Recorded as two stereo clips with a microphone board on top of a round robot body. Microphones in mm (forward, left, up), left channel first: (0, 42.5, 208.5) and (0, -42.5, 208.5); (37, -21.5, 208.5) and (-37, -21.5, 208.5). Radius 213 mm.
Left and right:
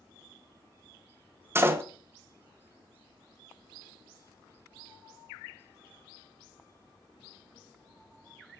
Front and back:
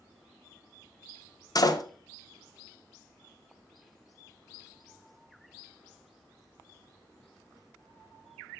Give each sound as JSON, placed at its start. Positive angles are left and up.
{"t": 1.6, "sound": "a door slam", "azimuth_deg": -30, "distance_m": 1.3}